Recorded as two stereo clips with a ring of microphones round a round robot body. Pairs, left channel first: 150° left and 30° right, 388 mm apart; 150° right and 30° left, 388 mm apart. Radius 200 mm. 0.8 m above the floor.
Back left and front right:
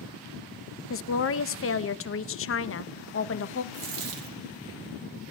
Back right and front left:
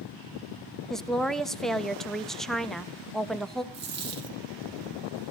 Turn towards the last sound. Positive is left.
turn(degrees=-35)